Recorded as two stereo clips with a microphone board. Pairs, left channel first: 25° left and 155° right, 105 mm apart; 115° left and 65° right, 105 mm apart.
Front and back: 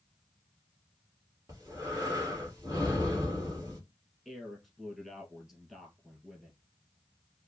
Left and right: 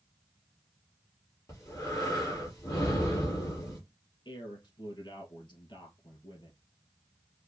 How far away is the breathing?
About 2 m.